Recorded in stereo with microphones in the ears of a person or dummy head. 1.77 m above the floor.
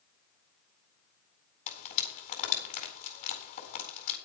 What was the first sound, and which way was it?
Frying, 40° left (ahead or behind).